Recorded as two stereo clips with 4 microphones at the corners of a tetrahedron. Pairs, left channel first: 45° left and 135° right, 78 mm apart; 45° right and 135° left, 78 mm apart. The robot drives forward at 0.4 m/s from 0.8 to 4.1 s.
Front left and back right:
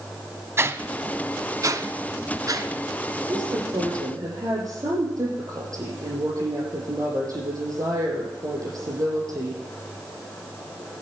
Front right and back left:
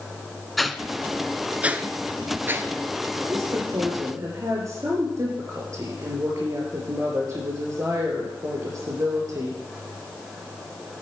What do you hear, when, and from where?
0.6 s a whoosh: 135° right, 0.5 m; by 2.7 s 170° right, 1.1 m
3.3 s a woman speaking: 175° right, 6 m